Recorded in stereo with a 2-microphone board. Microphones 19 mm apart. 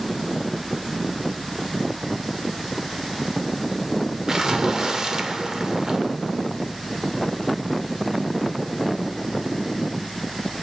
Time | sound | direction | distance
4.3 | a splash | 30° right (ahead or behind) | 0.8 m